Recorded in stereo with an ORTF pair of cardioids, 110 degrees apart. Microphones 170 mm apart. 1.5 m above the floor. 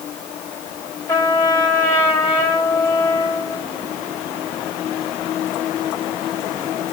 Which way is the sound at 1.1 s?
25° left.